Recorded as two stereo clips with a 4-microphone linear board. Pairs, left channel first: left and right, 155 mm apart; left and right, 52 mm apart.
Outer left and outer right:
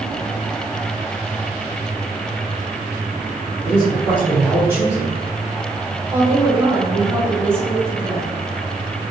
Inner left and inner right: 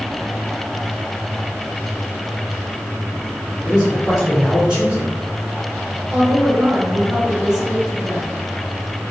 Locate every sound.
3.6 s a man speaking: 10° right (ahead or behind), 1.7 m
6.1 s a woman speaking: 15° right (ahead or behind), 1.1 m